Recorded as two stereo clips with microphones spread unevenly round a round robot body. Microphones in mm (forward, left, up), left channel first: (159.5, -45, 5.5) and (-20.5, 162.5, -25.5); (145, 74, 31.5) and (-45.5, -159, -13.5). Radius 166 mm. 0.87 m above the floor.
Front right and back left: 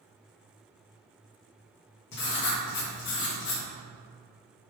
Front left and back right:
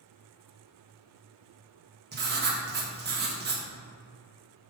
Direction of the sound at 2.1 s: 100° right.